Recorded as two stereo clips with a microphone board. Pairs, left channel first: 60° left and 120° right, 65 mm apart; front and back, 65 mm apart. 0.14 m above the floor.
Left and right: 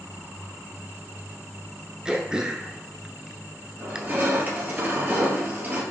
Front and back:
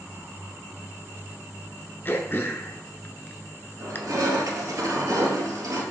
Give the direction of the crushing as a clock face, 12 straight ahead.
6 o'clock.